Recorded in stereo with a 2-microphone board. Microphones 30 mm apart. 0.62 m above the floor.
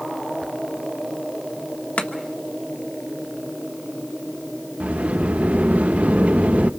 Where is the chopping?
50° left (ahead or behind), 1.3 m.